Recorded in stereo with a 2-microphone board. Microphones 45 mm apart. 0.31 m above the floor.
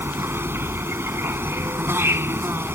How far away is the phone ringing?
No phone ringing in this recording.